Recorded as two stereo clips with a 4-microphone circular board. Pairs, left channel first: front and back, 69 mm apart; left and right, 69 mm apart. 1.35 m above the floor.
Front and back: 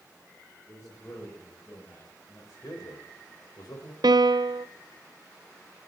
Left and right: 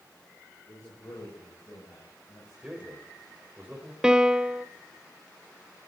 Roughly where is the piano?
Behind.